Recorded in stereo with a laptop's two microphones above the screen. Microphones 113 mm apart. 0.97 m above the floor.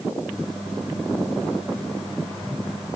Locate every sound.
0.3 s a microwave: centre (ahead or behind), 3 m